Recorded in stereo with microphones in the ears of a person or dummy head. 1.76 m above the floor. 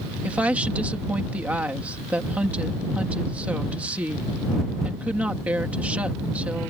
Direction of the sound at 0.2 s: 5° right (ahead or behind).